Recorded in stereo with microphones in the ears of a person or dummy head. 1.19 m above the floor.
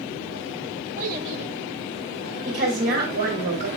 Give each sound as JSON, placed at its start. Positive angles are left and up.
{"t": 1.0, "sound": "a child speaking", "side_deg": -40, "distance_m": 0.6}
{"t": 2.5, "sound": "a woman speaking", "side_deg": -55, "distance_m": 2.0}